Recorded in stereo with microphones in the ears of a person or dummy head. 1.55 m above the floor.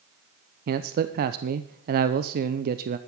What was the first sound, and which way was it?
A man speaking, 60° right (ahead or behind).